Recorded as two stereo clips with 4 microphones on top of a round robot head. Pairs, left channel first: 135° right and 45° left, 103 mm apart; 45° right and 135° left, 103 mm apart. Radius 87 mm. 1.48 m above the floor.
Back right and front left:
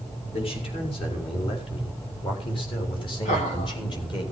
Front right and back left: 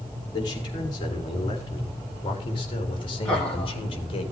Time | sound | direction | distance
0.3 | a man speaking | 95° right | 5.5 m
3.2 | laughter | 130° right | 6.5 m